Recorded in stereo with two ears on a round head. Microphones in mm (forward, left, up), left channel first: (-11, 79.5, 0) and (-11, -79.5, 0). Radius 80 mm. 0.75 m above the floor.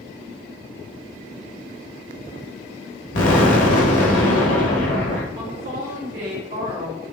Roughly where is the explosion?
Left.